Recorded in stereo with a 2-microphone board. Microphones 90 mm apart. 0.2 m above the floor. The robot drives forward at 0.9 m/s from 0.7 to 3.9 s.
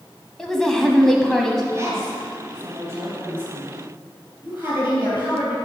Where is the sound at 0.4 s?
5° left (ahead or behind), 1.0 m.